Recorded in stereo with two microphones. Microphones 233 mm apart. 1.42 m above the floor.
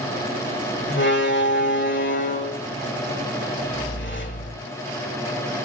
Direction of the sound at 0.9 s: 50° left (ahead or behind).